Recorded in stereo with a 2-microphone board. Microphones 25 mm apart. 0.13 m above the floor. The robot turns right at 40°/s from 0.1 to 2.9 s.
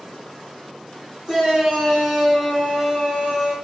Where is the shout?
20° right (ahead or behind), 1.8 m.